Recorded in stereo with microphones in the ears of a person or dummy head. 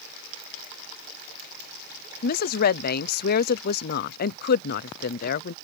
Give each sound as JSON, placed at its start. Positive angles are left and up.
{"t": 2.2, "sound": "a woman speaking", "side_deg": 55}